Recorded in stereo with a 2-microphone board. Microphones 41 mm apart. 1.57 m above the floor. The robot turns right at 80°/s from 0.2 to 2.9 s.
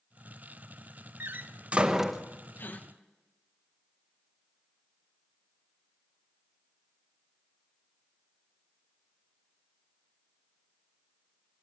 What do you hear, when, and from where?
1.2 s a door slam: 65° right (ahead or behind), 1.2 m; by 2.2 s 5° left (ahead or behind), 1.2 m
2.6 s a gasp: 65° left (ahead or behind), 1.6 m; by 2.9 s 40° left (ahead or behind), 1.6 m